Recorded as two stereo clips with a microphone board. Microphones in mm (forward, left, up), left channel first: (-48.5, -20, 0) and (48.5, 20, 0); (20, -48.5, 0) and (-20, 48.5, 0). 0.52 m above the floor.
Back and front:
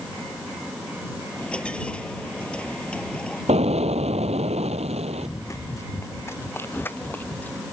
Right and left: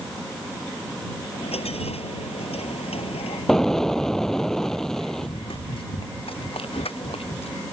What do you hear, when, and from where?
1.3 s a dropped coin: 75° right
3.5 s an explosion: 20° left
5.2 s running footsteps: 100° right; by 7.6 s 80° right